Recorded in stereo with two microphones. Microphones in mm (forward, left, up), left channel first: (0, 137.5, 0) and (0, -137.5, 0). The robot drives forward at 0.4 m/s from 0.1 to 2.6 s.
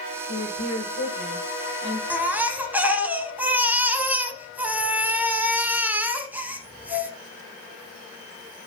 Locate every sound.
0.3 s a woman speaking: 80° left, 7.5 m; by 2.0 s 75° left (ahead or behind), 7.5 m
2.1 s a baby crying: 5° right (ahead or behind), 1.0 m